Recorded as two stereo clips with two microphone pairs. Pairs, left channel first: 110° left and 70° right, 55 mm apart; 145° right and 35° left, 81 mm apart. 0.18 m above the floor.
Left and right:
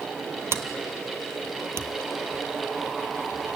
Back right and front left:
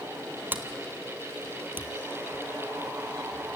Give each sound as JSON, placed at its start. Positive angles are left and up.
{"t": 0.5, "sound": "a sliding door", "azimuth_deg": -30, "distance_m": 1.0}